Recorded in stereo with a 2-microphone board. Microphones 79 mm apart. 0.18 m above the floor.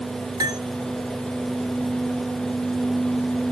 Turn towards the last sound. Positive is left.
turn(degrees=-60)  # may be behind; listen again after turning